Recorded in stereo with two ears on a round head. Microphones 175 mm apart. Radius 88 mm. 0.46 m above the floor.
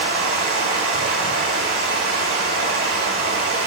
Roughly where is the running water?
Right.